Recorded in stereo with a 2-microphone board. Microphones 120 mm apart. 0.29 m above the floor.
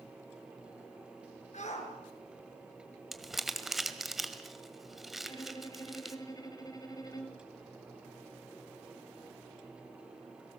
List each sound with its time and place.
1.5 s a shout: 70° left (ahead or behind), 5 m
3.1 s crumpling: centre (ahead or behind), 1.7 m
5.2 s a violin: 30° left (ahead or behind), 2.5 m